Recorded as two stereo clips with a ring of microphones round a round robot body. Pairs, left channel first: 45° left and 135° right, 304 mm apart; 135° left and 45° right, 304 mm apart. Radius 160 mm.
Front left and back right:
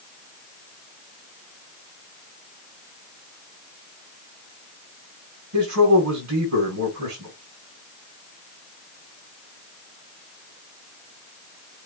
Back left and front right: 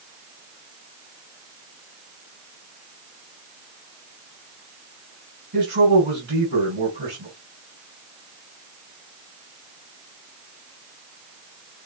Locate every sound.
5.5 s a man speaking: 100° right, 3.5 m